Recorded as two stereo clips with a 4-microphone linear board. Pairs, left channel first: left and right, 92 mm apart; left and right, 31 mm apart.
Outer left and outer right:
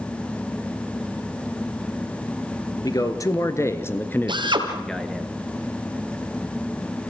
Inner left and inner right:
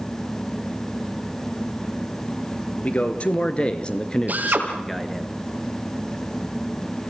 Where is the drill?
60° right (ahead or behind), 3 m.